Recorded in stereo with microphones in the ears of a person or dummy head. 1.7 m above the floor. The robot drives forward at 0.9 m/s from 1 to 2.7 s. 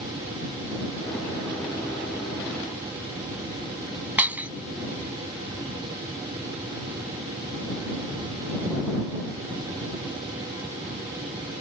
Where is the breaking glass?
10° right (ahead or behind).